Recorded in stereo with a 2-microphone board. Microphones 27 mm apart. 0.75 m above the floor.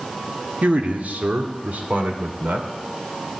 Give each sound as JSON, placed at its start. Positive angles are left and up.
{"t": 0.6, "sound": "a man speaking", "side_deg": -60, "distance_m": 1.5}